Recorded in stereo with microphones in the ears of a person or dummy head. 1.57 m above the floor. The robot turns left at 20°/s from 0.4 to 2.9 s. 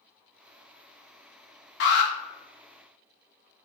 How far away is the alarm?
About 0.9 m.